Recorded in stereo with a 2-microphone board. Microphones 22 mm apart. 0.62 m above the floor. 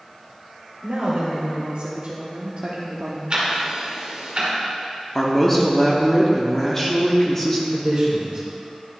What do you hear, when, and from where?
0.8 s a woman speaking: 55° right (ahead or behind), 1.7 m; by 3.2 s 45° right (ahead or behind), 0.8 m
3.3 s ticking: 40° right (ahead or behind), 1.7 m
5.2 s a man speaking: 15° left (ahead or behind), 0.9 m
7.7 s a man speaking: 50° right (ahead or behind), 1.5 m